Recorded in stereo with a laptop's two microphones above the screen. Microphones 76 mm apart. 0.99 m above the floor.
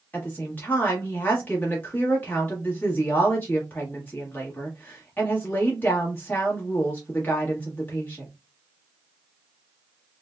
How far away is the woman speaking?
About 1.4 m.